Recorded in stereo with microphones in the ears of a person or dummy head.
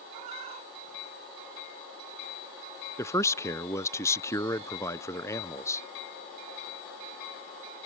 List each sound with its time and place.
0.1 s a cat meowing: 45° right (ahead or behind); by 1.7 s 40° right (ahead or behind)
3.0 s a man speaking: 15° left (ahead or behind)